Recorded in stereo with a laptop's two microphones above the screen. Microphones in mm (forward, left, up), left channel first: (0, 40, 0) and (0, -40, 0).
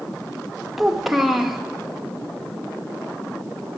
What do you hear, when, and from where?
0.8 s a child speaking: 5° right (ahead or behind), 0.8 m